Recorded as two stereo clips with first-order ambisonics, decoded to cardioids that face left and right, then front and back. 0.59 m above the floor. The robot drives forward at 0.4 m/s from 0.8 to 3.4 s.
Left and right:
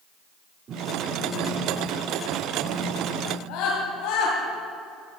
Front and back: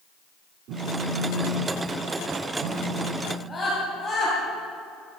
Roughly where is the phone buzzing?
Behind right.